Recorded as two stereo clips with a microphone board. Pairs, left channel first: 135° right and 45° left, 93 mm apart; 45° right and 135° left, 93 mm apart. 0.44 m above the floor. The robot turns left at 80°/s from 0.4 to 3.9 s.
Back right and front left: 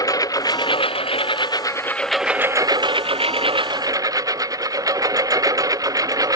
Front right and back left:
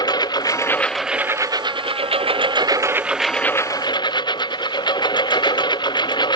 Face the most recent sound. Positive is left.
turn(degrees=-5)